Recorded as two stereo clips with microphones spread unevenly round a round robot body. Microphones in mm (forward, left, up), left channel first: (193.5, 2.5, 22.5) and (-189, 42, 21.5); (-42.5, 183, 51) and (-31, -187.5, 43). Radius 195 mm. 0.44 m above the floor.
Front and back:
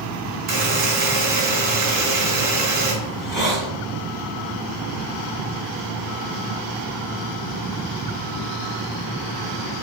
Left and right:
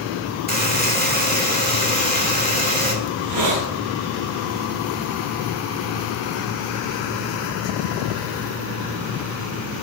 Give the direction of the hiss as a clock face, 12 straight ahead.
3 o'clock.